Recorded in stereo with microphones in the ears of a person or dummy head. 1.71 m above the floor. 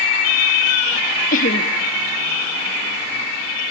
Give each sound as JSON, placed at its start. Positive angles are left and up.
{"t": 1.3, "sound": "laughter", "side_deg": 50, "distance_m": 1.4}